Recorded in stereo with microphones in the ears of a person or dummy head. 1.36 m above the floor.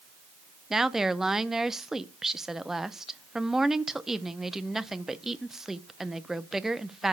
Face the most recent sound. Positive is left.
turn(degrees=-5)  # may be behind; listen again after turning